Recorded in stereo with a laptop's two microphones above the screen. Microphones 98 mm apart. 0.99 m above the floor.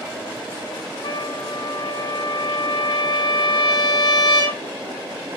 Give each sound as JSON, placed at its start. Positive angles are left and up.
{"t": 1.0, "sound": "a trumpet", "side_deg": 55, "distance_m": 4.0}